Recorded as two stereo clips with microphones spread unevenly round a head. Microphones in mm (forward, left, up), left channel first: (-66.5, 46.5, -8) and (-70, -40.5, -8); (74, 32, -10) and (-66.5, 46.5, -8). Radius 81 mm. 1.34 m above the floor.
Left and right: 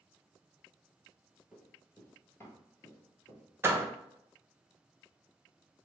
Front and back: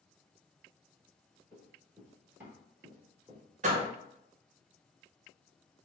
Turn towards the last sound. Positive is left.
turn(degrees=-155)